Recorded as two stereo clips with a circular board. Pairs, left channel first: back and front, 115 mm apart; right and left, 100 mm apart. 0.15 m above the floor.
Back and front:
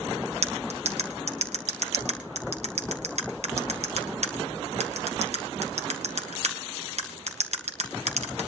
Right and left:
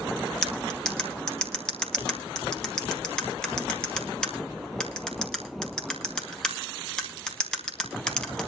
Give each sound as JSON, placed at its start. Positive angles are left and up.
{"t": 0.4, "sound": "cutlery clinking", "azimuth_deg": -10, "distance_m": 2.0}